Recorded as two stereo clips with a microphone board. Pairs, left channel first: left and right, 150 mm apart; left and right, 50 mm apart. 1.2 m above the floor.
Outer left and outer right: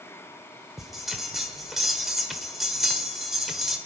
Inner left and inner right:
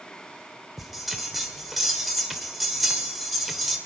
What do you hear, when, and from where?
0.8 s a bell: centre (ahead or behind), 1.4 m